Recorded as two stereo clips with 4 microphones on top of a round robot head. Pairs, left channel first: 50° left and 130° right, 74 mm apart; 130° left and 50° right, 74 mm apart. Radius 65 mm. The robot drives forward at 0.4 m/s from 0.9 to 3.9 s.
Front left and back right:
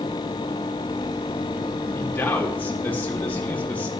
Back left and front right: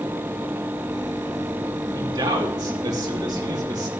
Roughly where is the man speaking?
Ahead.